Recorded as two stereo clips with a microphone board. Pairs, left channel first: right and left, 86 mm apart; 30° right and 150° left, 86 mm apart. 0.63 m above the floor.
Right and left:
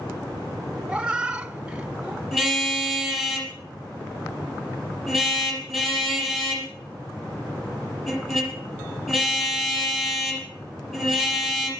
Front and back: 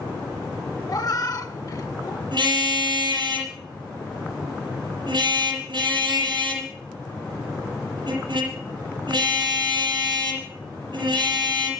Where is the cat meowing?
10° left, 0.6 m.